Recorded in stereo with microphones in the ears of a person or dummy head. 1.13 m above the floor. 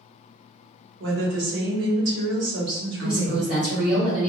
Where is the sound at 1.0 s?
55° right (ahead or behind), 0.9 m.